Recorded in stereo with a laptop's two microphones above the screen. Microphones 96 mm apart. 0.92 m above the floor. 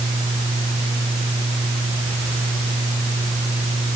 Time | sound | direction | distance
0.0 | a fan | 70° right (ahead or behind) | ?